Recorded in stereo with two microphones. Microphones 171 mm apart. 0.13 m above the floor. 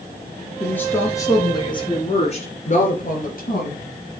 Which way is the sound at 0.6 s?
10° left (ahead or behind).